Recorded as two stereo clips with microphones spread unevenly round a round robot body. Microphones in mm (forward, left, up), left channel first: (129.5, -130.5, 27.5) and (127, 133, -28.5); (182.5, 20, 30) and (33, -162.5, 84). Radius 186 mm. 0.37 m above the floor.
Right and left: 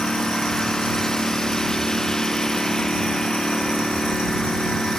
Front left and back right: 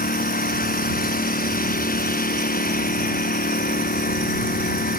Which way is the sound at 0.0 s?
Straight ahead.